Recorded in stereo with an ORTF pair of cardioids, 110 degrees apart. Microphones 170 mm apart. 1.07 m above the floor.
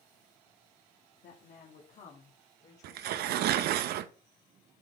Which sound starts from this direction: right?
Tearing paper, at 2.8 s.